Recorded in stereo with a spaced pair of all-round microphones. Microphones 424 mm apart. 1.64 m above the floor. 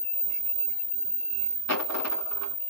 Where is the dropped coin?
35° left (ahead or behind), 1.1 m.